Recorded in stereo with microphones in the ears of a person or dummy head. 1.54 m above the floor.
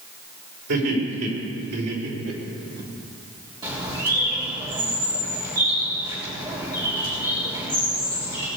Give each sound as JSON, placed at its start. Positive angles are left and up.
{"t": 0.7, "sound": "laughter", "side_deg": -60, "distance_m": 5.5}
{"t": 3.6, "sound": "a bird", "side_deg": -20, "distance_m": 3.5}